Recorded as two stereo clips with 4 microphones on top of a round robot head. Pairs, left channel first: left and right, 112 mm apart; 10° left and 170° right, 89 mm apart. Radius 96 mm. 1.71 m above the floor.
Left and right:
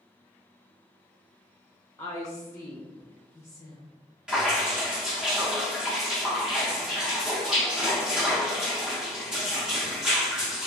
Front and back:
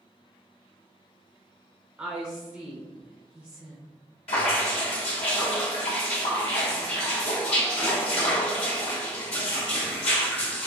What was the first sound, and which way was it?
A woman speaking, 135° left.